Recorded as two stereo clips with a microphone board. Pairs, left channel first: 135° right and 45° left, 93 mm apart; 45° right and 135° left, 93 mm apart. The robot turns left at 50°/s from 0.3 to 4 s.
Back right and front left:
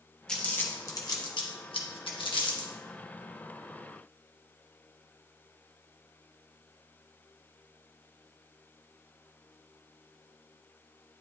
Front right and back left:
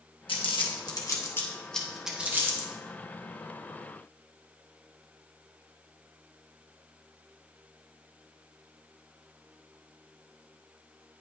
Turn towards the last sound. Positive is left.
turn(degrees=120)